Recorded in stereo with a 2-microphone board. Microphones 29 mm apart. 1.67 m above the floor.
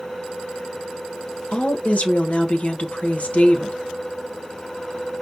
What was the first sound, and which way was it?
A woman speaking, 50° left (ahead or behind).